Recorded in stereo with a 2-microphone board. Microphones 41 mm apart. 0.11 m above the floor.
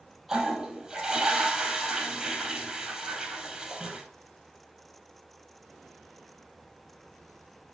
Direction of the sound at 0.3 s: 15° right (ahead or behind).